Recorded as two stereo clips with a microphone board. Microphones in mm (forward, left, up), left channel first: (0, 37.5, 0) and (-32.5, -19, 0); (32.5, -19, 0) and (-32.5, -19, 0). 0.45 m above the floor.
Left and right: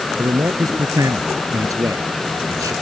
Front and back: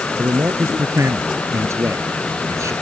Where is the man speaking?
140° right; by 2.7 s 145° right.